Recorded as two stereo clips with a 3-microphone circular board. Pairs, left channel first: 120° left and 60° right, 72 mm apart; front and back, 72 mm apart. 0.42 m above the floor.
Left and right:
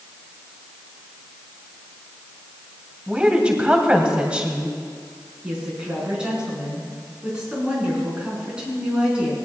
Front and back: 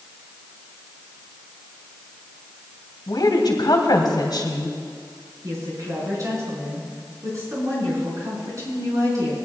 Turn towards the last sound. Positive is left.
turn(degrees=-135)